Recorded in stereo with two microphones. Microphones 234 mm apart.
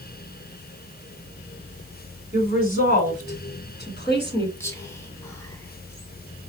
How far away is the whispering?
About 1.5 m.